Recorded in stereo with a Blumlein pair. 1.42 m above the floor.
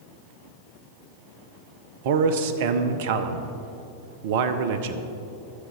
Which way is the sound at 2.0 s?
50° right.